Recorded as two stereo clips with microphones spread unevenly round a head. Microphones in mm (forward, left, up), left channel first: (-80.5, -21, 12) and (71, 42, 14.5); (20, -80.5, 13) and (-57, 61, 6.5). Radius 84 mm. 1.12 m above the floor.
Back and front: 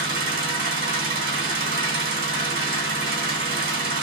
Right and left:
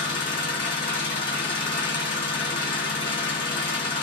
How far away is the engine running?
About 2 m.